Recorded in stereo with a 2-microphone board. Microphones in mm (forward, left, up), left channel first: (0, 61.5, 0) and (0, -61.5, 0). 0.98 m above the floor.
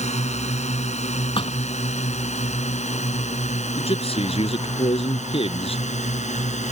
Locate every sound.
0.0 s a drone: 65° left (ahead or behind); by 6.7 s 75° left (ahead or behind)
1.4 s a thud: 50° left (ahead or behind)
3.8 s a man speaking: 50° left (ahead or behind)